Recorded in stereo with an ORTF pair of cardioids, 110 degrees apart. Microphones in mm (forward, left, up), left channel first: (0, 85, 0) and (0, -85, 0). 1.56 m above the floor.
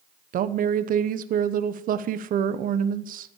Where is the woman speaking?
55° right, 1.0 m.